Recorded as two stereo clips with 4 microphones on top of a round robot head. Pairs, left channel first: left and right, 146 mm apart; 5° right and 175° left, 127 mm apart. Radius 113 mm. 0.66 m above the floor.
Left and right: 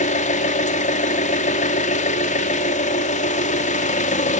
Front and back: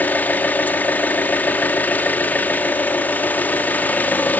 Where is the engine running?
70° left, 1.4 m.